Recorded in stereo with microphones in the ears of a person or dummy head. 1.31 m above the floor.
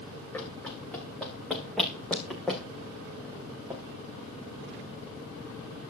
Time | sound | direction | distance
0.3 | running footsteps | 10° left (ahead or behind) | 6 m